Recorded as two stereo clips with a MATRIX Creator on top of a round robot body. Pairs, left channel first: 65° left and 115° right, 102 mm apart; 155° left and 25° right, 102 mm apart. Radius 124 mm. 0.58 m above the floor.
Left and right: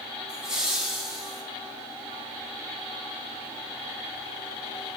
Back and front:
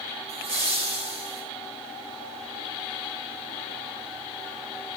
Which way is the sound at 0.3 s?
30° right.